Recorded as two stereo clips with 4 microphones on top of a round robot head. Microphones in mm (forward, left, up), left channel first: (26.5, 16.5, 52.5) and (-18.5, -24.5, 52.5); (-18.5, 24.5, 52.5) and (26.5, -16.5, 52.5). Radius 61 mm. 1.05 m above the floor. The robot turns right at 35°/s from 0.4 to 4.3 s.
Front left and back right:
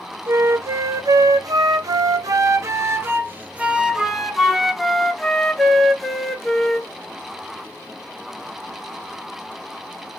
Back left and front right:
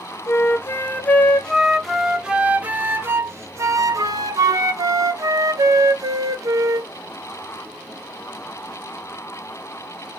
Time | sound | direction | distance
0.3 | a flute | 175° left | 0.7 m